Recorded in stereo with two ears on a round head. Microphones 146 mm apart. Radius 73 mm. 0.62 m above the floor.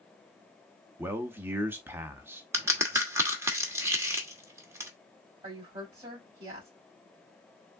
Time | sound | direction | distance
1.0 | a man speaking | 15° right (ahead or behind) | 0.7 m
2.5 | a crack | 15° right (ahead or behind) | 1.1 m
5.4 | a woman speaking | 25° right (ahead or behind) | 3 m